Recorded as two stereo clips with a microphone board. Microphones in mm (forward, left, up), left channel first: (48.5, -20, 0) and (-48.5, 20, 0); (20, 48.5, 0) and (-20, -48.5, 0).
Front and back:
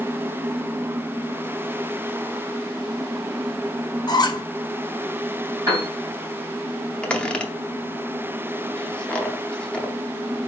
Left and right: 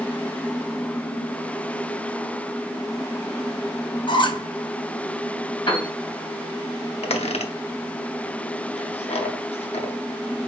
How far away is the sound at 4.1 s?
About 0.5 m.